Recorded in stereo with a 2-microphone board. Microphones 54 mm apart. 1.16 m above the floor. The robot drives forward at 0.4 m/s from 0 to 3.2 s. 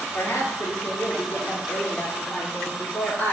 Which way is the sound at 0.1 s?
55° left (ahead or behind).